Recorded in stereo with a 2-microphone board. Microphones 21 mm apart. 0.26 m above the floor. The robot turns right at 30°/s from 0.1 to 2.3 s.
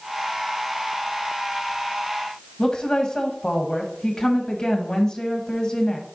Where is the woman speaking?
40° left (ahead or behind), 1.4 m.